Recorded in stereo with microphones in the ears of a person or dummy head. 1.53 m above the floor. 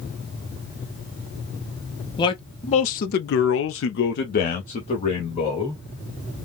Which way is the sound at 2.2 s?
25° left (ahead or behind).